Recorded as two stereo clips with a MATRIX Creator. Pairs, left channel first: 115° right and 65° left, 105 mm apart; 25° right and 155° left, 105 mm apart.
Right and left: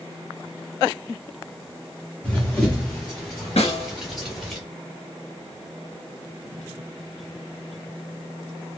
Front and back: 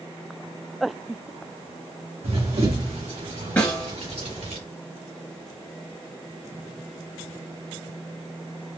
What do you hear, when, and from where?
2.2 s running footsteps: 170° left, 1.7 m; by 4.6 s 155° left, 3 m
3.6 s a snare drum: 100° right, 1.9 m